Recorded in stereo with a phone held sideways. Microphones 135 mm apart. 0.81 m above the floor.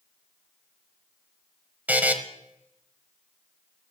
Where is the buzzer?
10° right (ahead or behind), 1.0 m.